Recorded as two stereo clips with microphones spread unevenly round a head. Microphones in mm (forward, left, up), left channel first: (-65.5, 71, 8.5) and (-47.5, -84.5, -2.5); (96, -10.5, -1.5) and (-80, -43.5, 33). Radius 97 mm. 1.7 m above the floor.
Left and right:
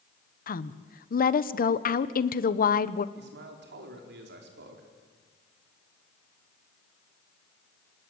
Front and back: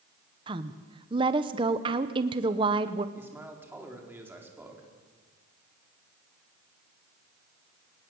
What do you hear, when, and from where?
0.5 s a woman speaking: 125° left, 1.1 m
3.1 s a man speaking: 90° right, 4.5 m